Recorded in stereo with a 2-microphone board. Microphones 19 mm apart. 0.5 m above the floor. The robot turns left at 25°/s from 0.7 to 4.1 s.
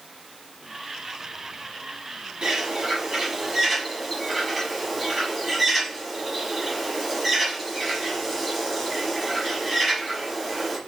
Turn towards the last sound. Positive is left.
turn(degrees=-5)  # may be behind; listen again after turning